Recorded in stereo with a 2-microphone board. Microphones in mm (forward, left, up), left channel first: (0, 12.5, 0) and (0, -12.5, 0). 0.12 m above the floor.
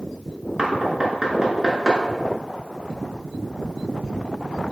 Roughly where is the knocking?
Right.